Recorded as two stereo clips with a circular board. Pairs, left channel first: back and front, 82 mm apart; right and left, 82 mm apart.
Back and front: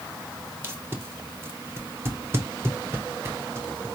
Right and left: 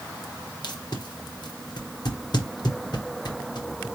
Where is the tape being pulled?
60° right, 1.0 m.